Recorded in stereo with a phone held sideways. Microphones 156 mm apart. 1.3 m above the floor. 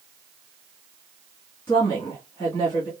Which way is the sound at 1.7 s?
15° left (ahead or behind).